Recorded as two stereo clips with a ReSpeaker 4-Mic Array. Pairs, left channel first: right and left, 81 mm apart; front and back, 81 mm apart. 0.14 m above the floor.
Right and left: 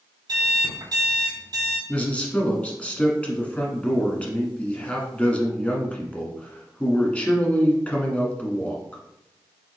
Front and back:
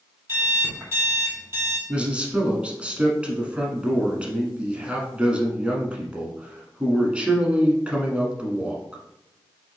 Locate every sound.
0.3 s an alarm clock: 120° left, 2.5 m
1.9 s a man speaking: 130° right, 1.2 m